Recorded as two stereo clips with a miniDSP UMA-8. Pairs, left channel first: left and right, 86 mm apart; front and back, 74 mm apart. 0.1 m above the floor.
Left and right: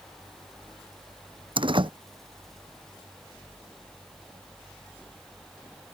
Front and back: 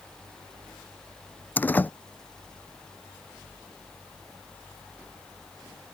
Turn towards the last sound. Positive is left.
turn(degrees=-70)